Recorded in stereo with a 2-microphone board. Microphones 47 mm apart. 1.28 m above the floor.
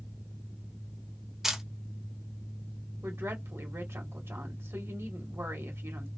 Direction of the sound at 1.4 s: 10° right (ahead or behind).